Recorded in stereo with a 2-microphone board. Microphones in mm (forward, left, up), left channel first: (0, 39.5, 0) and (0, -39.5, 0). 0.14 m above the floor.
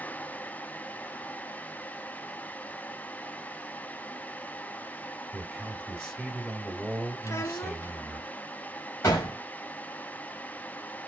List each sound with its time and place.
5.3 s a man speaking: 15° right (ahead or behind), 1.9 m
7.2 s a child speaking: 40° left (ahead or behind), 0.9 m
9.0 s a gunshot: 45° left (ahead or behind), 3 m